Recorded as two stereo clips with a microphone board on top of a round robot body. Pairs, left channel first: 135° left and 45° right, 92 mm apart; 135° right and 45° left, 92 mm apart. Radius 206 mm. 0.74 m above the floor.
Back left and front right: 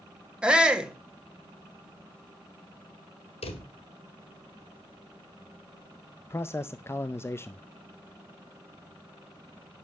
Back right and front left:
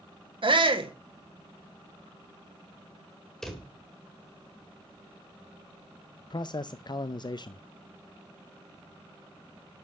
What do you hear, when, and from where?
0.4 s a shout: 35° left, 2 m
3.4 s a drawer: 140° left, 1.7 m
6.3 s a man speaking: 165° right, 0.7 m